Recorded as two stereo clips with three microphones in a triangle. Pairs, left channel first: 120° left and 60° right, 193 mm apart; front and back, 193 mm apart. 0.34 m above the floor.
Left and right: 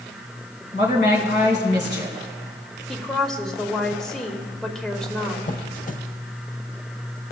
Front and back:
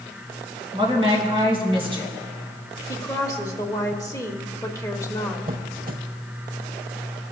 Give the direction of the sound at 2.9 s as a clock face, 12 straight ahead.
11 o'clock.